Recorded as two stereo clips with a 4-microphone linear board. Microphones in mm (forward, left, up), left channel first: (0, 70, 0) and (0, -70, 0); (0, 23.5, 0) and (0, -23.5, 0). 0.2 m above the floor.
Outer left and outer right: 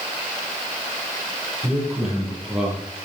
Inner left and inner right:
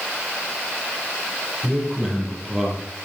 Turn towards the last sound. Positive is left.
turn(degrees=0)  # may be behind; listen again after turning